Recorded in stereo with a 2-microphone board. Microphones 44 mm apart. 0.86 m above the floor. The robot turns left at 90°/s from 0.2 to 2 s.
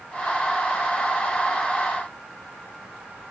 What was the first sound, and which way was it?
Only background noise.